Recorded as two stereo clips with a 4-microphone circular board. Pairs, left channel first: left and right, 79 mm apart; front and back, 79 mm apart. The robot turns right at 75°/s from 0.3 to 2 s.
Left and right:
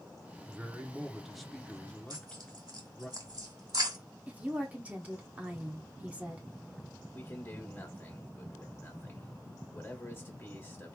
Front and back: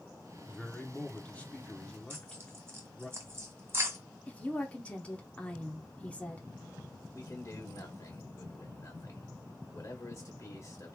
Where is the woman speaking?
45° right, 1.1 m.